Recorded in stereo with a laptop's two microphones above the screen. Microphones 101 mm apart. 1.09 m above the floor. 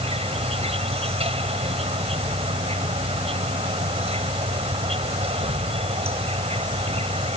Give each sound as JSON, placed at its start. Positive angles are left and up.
{"t": 0.0, "sound": "an insect", "side_deg": -85}